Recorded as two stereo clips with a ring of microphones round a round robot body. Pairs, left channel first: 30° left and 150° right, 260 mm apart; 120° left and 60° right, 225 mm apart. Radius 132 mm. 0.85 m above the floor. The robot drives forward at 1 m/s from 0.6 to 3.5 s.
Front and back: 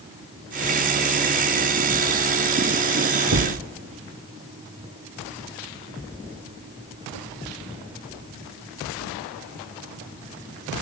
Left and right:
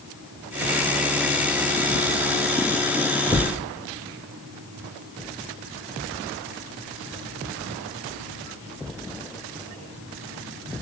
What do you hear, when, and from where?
3.3 s a thud: 155° right, 1.1 m; by 3.6 s 160° right, 1.2 m